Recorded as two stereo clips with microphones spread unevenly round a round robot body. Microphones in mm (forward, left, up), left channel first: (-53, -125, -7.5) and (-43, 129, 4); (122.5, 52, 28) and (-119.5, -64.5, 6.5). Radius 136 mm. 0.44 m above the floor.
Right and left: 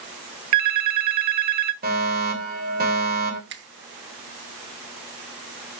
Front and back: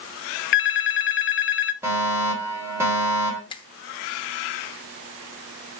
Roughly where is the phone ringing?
Left.